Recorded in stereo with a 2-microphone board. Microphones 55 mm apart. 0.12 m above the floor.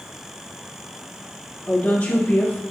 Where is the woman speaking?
35° left (ahead or behind), 1.4 m.